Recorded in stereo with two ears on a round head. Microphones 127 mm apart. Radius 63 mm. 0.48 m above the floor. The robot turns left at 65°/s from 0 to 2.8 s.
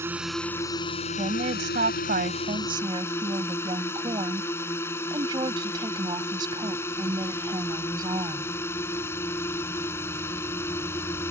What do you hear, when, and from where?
0.0 s a drone: 160° right; by 11.3 s 15° left
1.2 s a woman speaking: 40° right; by 8.5 s 145° right